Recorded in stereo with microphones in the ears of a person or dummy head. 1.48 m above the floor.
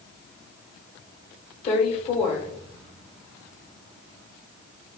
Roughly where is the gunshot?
I don't hear a gunshot.